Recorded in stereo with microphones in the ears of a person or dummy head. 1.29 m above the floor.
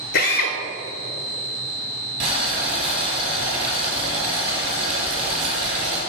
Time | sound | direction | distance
0.1 | a drill | 50° left (ahead or behind) | 1.1 m
2.2 | boiling | 30° right (ahead or behind) | 3 m